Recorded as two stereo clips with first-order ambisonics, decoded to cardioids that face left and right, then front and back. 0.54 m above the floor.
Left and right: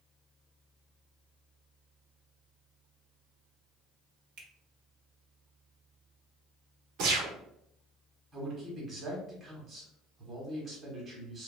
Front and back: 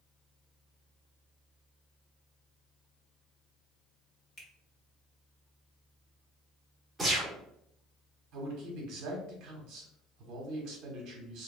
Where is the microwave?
No microwave in this recording.